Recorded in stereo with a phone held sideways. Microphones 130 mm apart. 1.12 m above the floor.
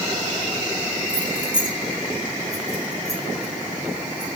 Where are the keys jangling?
75° right (ahead or behind), 3 m; by 4.3 s 50° right (ahead or behind), 5 m.